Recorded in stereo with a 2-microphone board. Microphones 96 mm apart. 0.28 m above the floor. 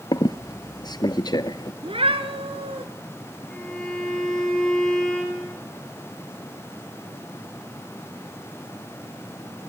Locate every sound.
0.1 s a squeak: 45° left (ahead or behind), 1.1 m
1.8 s a cat meowing: 75° right (ahead or behind), 2 m
3.5 s a violin: 5° left (ahead or behind), 6.5 m